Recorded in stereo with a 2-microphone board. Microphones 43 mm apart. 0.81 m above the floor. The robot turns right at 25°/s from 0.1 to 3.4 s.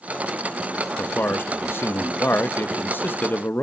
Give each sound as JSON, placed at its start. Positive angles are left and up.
{"t": 1.0, "sound": "a man speaking", "azimuth_deg": 60, "distance_m": 0.6}